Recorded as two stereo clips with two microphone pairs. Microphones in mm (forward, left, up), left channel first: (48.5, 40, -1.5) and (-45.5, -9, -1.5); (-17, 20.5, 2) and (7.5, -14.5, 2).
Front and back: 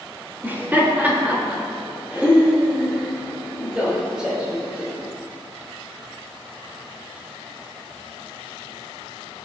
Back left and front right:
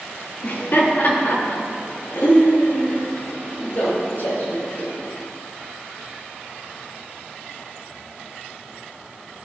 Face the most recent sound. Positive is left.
turn(degrees=125)